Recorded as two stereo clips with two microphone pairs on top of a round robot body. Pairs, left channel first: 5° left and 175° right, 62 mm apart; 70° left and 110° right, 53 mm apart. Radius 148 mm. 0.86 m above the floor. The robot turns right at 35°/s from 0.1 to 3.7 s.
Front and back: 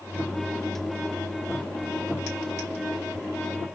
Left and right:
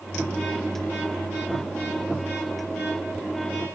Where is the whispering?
I don't hear whispering.